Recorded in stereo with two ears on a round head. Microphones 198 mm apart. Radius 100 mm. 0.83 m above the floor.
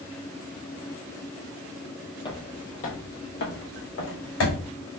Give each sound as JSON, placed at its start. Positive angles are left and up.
{"t": 2.2, "sound": "footsteps", "side_deg": 20, "distance_m": 0.9}